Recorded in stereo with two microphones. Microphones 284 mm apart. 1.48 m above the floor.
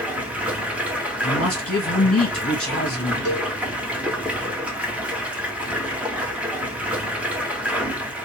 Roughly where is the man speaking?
Left.